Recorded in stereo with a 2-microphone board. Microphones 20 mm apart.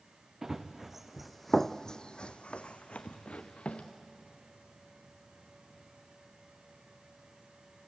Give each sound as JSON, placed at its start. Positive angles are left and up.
{"t": 0.4, "sound": "running footsteps", "side_deg": -25, "distance_m": 1.7}